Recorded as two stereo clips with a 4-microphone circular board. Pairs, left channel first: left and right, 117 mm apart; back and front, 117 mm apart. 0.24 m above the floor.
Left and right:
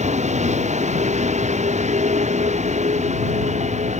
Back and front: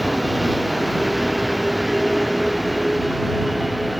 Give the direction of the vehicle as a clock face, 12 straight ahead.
3 o'clock.